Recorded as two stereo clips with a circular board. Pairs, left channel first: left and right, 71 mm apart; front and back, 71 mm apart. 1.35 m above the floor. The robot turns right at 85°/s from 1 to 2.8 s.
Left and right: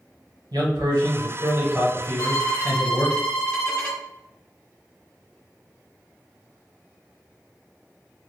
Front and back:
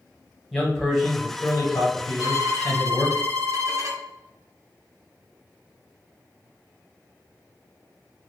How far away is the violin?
About 0.6 m.